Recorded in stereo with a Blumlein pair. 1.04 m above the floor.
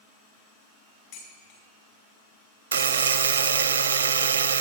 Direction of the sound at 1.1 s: 50° left.